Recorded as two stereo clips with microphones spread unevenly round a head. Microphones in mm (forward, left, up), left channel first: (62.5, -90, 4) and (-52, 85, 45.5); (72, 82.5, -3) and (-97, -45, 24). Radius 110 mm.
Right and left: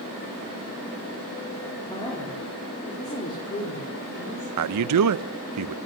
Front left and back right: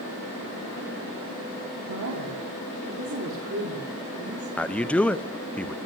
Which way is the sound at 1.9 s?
130° right.